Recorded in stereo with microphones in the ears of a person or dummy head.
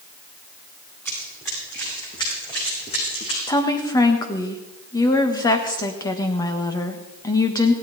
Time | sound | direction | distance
1.1 | running footsteps | 10° left (ahead or behind) | 6 m
3.5 | a woman speaking | 20° left (ahead or behind) | 1.6 m